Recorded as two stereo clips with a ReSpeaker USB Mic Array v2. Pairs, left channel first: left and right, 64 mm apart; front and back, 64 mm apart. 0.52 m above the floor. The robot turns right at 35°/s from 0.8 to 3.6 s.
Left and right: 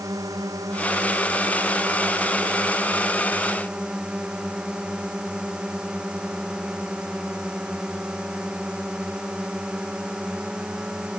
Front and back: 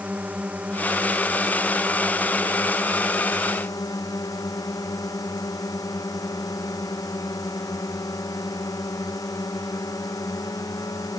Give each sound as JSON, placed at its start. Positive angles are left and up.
{"t": 0.0, "sound": "a drone", "azimuth_deg": -115}